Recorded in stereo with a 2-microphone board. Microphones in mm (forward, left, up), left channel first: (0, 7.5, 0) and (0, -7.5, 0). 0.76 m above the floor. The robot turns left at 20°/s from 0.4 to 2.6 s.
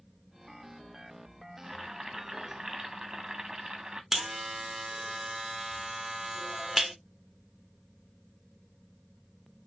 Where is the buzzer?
20° right (ahead or behind), 1.2 m.